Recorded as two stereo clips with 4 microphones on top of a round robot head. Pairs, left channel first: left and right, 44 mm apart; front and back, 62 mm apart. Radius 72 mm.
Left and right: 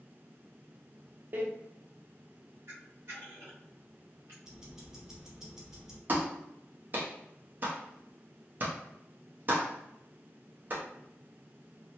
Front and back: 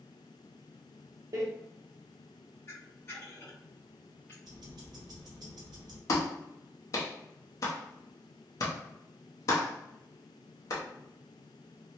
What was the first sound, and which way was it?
A door slam, 140° right.